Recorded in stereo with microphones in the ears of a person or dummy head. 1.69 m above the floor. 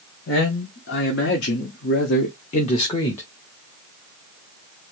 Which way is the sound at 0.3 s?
75° left (ahead or behind).